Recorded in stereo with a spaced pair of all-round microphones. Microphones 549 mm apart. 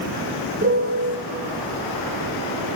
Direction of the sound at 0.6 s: 25° right (ahead or behind).